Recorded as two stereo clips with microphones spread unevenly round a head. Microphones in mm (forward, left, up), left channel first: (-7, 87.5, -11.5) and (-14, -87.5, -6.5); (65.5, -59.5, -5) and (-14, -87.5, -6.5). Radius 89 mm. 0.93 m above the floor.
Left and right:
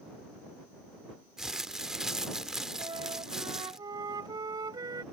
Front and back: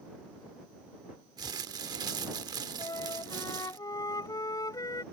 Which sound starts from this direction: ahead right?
A flute, at 2.8 s.